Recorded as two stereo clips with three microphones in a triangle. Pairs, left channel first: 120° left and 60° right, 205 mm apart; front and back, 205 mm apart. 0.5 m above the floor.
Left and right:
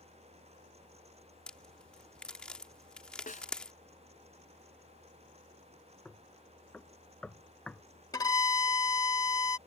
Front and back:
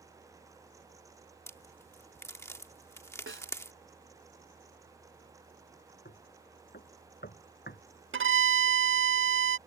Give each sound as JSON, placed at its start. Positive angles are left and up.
{"t": 1.5, "sound": "a crack", "azimuth_deg": 45}
{"t": 3.3, "sound": "a snare drum", "azimuth_deg": 165}
{"t": 6.0, "sound": "knocking", "azimuth_deg": 35}
{"t": 8.1, "sound": "a violin", "azimuth_deg": -170}